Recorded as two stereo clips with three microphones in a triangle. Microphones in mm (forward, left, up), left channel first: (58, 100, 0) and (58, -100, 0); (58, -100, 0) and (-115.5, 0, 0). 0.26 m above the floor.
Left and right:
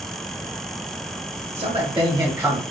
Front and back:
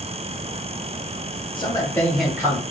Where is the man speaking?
75° right, 1.6 m; by 2.6 s 170° right, 1.3 m.